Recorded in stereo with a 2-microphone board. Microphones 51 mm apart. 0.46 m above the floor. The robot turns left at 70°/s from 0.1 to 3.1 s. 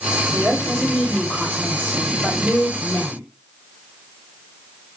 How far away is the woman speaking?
About 1.4 m.